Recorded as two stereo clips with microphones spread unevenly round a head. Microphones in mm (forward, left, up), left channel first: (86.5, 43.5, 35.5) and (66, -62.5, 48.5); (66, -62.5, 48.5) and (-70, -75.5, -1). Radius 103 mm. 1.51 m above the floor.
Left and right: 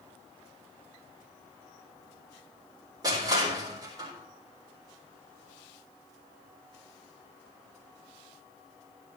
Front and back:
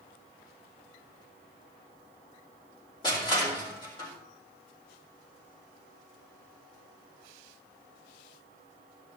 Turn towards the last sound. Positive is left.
turn(degrees=-50)